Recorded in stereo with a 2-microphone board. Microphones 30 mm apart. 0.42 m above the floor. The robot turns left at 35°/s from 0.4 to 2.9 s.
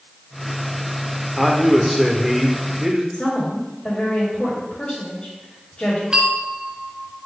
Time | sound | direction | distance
1.4 | a man speaking | centre (ahead or behind) | 0.8 m
3.1 | a woman speaking | 45° left (ahead or behind) | 2 m
6.1 | a bell | 35° right (ahead or behind) | 0.8 m